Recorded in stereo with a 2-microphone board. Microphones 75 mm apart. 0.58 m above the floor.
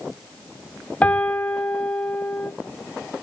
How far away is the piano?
About 1.0 m.